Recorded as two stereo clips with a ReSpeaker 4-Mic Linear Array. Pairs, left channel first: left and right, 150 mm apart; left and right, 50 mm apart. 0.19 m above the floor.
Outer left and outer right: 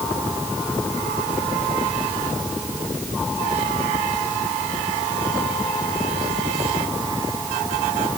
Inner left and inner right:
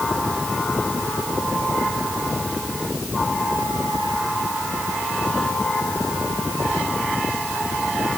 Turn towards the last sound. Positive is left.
No sound to turn to.